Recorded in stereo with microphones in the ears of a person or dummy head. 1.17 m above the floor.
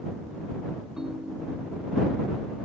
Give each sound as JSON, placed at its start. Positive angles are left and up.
{"t": 1.0, "sound": "a ringtone", "side_deg": -5}